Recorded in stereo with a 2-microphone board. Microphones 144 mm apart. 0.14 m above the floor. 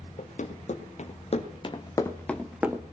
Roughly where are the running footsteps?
Left.